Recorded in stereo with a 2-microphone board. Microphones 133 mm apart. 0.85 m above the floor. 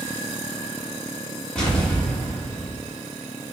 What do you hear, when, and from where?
1.6 s an explosion: 10° left (ahead or behind), 1.8 m